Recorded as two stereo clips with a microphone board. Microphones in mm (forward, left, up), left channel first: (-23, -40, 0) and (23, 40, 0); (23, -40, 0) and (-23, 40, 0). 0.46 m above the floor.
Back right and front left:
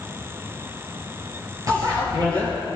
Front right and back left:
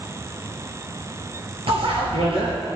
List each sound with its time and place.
1.7 s a bicycle bell: 110° left, 6 m